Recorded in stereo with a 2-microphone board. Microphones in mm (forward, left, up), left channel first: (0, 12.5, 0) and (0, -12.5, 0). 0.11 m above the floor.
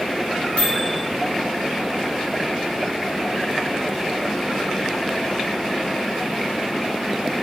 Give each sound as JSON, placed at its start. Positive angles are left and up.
{"t": 0.6, "sound": "a microwave", "side_deg": 45, "distance_m": 1.5}